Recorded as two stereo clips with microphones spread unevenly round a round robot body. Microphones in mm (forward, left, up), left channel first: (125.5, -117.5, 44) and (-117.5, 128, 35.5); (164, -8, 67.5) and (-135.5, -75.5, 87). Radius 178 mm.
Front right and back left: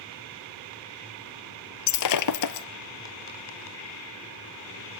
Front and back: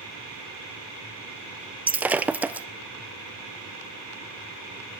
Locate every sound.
1.9 s breaking glass: 85° right, 1.1 m